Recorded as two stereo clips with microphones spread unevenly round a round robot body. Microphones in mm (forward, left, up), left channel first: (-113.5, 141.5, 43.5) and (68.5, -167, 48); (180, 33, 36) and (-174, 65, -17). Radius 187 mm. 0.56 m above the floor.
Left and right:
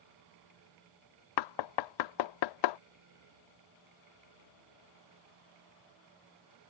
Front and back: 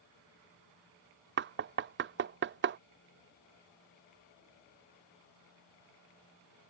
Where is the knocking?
120° left.